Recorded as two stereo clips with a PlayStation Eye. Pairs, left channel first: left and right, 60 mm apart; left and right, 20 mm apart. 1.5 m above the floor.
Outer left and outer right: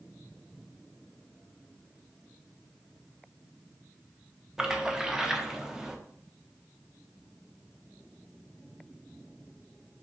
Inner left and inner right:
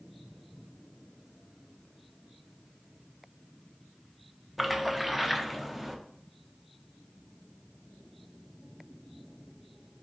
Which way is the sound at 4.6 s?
10° right (ahead or behind).